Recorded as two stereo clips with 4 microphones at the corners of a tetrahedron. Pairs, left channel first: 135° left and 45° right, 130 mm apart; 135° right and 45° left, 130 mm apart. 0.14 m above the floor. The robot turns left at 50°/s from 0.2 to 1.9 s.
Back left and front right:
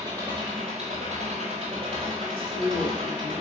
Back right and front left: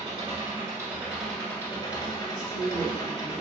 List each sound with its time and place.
0.0 s an engine running: 10° left, 0.9 m; by 3.4 s 75° right, 0.9 m
2.2 s a woman speaking: 5° right, 1.8 m